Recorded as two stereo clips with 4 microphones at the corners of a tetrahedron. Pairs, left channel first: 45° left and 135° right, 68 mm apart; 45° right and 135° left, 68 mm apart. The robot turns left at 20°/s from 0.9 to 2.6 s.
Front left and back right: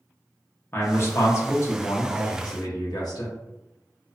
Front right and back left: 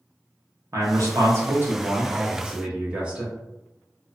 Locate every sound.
0.7 s a man speaking: 95° left, 0.8 m; by 3.3 s 65° left, 0.8 m